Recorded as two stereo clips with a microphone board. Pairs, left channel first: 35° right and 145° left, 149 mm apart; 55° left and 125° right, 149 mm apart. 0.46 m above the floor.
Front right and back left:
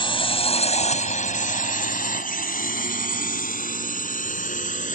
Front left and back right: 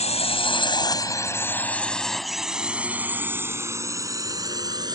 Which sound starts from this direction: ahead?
A drone, at 0.0 s.